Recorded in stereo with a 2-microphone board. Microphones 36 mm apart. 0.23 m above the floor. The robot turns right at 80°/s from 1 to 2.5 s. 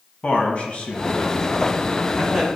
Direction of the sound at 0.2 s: 55° left.